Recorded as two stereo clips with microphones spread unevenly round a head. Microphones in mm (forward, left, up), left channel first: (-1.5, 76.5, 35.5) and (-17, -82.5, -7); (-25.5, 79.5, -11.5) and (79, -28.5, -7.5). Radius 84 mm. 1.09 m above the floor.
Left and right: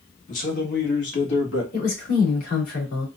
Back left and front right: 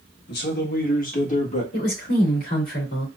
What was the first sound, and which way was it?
A man speaking, 130° left.